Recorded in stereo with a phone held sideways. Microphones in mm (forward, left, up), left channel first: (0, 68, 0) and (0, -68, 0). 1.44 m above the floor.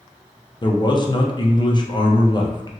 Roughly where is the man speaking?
Left.